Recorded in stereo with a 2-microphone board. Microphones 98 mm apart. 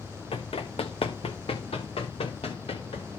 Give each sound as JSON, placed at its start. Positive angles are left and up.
{"t": 0.3, "sound": "running footsteps", "side_deg": 75, "distance_m": 1.3}